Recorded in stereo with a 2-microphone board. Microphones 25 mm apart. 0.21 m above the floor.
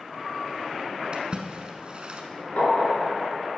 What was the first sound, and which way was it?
A splash, 35° right (ahead or behind).